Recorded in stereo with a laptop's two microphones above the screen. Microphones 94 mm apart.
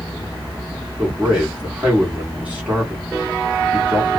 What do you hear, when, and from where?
1.0 s a man speaking: 15° right (ahead or behind), 1.3 m